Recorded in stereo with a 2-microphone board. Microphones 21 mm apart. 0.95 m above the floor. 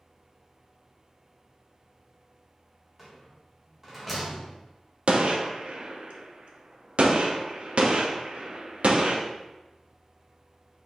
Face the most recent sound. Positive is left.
turn(degrees=-60)  # may be behind; listen again after turning